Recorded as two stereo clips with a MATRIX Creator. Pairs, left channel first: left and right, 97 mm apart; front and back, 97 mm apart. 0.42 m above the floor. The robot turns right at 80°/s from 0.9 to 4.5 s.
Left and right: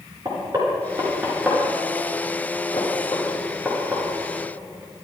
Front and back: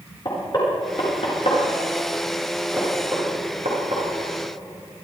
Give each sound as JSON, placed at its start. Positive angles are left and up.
{"t": 0.2, "sound": "knocking", "azimuth_deg": -45, "distance_m": 6.0}